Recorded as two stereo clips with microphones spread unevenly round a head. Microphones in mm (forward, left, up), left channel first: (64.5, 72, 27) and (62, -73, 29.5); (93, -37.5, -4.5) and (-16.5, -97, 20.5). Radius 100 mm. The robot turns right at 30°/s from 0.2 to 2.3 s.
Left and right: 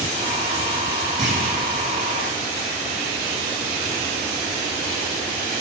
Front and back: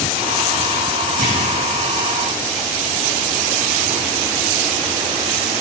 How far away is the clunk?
About 2 m.